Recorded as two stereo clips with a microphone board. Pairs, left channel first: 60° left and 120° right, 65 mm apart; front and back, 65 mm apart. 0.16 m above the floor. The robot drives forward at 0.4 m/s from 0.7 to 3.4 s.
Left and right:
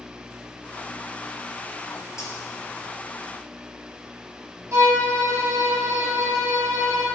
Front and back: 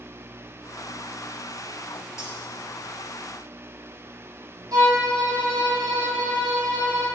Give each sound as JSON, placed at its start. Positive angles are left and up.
{"t": 2.2, "sound": "cutlery clinking", "azimuth_deg": 30, "distance_m": 1.7}
{"t": 4.7, "sound": "a violin", "azimuth_deg": -155, "distance_m": 2.5}